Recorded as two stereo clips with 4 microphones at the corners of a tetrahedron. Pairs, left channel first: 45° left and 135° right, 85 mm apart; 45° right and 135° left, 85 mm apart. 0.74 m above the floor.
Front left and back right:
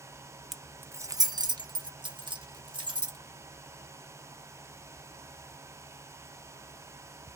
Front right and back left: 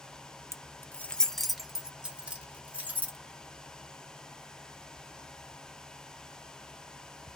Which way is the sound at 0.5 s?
50° right.